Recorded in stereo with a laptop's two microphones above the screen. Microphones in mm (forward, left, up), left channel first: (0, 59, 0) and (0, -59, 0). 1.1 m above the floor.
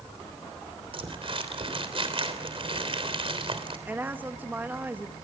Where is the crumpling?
55° right (ahead or behind), 3 m.